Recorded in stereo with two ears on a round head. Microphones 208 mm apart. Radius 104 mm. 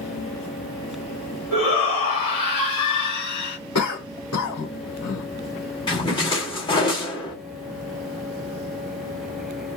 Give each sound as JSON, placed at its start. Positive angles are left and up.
{"t": 1.5, "sound": "a shout", "side_deg": 80, "distance_m": 2.0}
{"t": 3.8, "sound": "a cough", "side_deg": 75, "distance_m": 2.5}
{"t": 5.9, "sound": "a splash", "side_deg": 20, "distance_m": 1.4}